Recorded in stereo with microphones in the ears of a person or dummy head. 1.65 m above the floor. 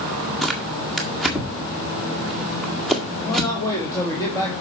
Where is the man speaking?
20° left (ahead or behind), 2.5 m.